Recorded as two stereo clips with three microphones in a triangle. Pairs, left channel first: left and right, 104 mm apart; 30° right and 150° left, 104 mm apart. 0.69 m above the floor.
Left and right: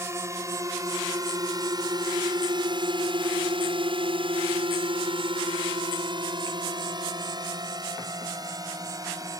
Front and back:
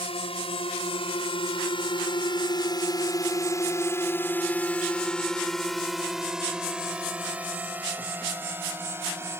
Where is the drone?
30° right; by 9.4 s 145° right.